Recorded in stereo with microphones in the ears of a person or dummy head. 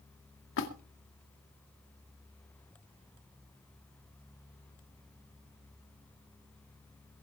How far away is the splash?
About 2 m.